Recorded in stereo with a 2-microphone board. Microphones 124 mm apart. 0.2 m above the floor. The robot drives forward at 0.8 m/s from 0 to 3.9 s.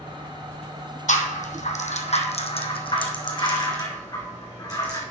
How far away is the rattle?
About 1.3 m.